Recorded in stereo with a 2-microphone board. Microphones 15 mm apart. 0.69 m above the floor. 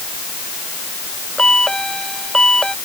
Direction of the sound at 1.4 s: 65° left (ahead or behind).